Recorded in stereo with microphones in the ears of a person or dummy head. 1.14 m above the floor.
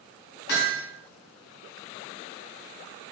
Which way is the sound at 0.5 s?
60° left (ahead or behind).